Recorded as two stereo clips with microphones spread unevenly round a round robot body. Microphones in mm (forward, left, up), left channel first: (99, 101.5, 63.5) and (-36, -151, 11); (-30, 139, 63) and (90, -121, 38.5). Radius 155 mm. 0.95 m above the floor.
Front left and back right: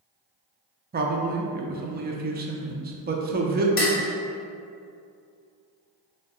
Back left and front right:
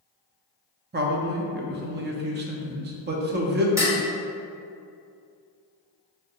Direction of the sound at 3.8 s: 15° left.